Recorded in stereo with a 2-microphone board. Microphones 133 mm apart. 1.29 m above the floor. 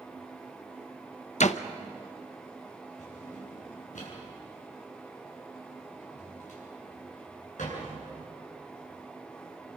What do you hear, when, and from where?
1.4 s a door slam: 60° left (ahead or behind), 0.9 m
3.0 s a drawer: 70° left (ahead or behind), 8.5 m